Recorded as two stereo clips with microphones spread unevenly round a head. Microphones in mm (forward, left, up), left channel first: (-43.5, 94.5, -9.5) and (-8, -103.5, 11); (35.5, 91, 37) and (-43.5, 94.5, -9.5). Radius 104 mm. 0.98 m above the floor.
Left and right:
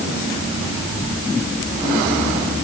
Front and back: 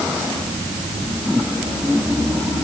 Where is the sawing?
No sawing in this recording.